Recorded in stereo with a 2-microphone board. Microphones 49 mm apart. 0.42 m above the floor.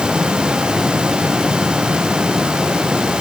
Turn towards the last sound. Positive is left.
No sound to turn to.